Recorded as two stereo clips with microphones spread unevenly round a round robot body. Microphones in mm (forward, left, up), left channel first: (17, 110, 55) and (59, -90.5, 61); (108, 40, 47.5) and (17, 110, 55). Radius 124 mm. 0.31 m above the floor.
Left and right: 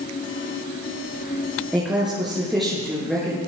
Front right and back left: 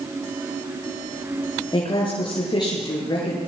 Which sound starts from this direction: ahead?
A woman speaking, at 1.7 s.